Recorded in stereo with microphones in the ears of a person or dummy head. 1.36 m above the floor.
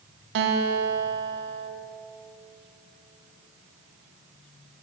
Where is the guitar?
65° right (ahead or behind), 0.8 m.